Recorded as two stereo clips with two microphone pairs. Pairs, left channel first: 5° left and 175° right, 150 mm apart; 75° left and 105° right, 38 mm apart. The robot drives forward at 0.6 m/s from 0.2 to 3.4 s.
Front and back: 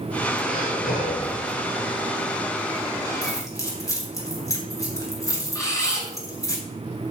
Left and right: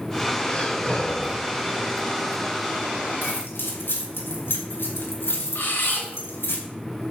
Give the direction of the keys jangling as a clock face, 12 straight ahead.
10 o'clock.